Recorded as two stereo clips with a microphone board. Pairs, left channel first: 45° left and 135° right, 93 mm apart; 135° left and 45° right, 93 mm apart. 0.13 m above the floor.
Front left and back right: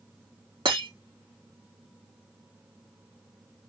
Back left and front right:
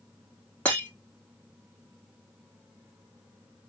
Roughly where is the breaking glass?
Behind right.